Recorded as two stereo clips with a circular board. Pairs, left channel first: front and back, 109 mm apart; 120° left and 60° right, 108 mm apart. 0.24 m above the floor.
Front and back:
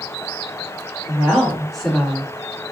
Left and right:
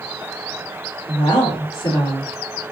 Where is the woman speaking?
95° left, 3 m; by 2.3 s 80° left, 3 m.